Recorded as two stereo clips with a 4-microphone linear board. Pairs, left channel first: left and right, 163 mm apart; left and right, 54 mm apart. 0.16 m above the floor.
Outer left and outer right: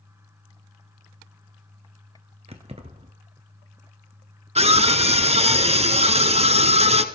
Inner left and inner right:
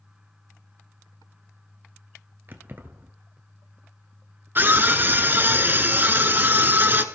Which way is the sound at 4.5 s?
40° right (ahead or behind).